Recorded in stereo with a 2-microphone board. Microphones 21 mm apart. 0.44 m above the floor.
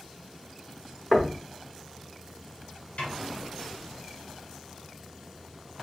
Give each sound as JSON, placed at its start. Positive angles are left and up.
{"t": 1.1, "sound": "knocking", "side_deg": 0, "distance_m": 0.6}
{"t": 3.0, "sound": "a snare drum", "side_deg": 80, "distance_m": 1.5}